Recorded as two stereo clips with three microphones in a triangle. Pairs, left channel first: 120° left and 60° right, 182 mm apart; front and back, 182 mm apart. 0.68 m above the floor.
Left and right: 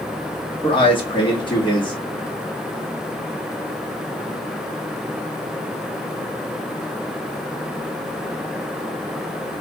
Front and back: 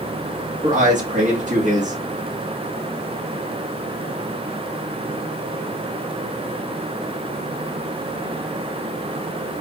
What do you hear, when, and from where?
0.6 s a man speaking: 170° left, 1.4 m